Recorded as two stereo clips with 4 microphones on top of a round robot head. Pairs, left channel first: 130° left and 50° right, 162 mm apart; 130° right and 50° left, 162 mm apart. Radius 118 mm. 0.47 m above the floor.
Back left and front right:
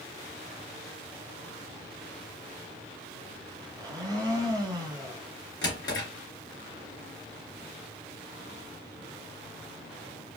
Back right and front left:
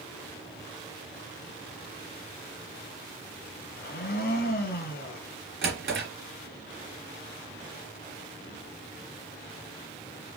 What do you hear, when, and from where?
3.8 s a blender: 115° right, 1.3 m
5.6 s a drawer: 65° left, 2.5 m